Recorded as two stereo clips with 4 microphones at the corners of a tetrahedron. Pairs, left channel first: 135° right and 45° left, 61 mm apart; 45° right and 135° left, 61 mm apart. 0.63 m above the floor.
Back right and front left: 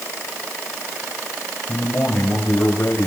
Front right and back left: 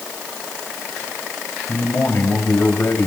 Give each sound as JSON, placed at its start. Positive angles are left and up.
{"t": 1.7, "sound": "a man speaking", "azimuth_deg": -90, "distance_m": 4.0}